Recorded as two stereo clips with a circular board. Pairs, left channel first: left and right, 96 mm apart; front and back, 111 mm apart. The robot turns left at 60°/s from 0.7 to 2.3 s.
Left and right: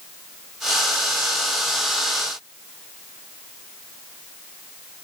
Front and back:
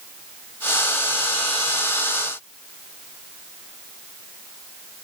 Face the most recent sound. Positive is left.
No sound to turn to.